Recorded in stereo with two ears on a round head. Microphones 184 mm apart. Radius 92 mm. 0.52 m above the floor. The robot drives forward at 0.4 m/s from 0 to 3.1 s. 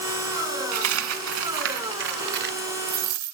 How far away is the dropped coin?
About 1.4 m.